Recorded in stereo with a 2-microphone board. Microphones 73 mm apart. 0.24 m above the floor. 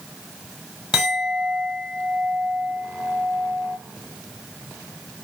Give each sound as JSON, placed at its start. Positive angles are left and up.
{"t": 0.9, "sound": "a clink", "side_deg": -10, "distance_m": 1.1}